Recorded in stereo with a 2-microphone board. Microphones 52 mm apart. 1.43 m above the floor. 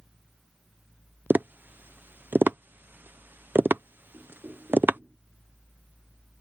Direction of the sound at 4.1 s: 40° right (ahead or behind).